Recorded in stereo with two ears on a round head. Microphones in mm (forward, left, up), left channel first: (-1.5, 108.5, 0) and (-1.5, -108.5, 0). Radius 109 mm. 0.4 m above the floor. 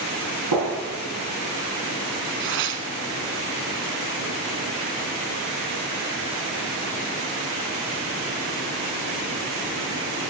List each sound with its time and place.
0.5 s a gunshot: 80° right, 6 m
2.4 s tearing paper: 50° right (ahead or behind), 1.0 m